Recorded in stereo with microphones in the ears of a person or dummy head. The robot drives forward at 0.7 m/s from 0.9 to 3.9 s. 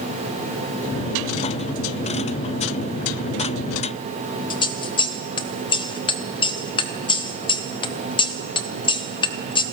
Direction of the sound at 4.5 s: 20° left (ahead or behind).